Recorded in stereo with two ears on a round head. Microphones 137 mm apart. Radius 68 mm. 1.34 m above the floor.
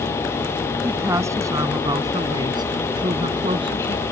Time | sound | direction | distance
0.8 | a woman speaking | 15° right (ahead or behind) | ?